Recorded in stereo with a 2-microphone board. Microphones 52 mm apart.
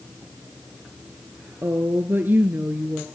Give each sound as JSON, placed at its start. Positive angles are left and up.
{"t": 1.6, "sound": "a woman speaking", "side_deg": -50, "distance_m": 1.6}